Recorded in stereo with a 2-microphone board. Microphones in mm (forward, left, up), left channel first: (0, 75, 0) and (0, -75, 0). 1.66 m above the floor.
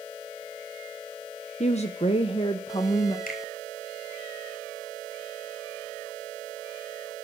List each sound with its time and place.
1.6 s a woman speaking: 50° left (ahead or behind), 0.8 m; by 3.2 s 30° left (ahead or behind), 1.7 m
3.3 s a finger snap: 80° left, 7 m